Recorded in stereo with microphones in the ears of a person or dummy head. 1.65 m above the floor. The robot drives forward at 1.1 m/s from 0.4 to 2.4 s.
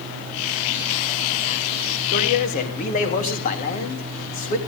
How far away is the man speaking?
About 3 m.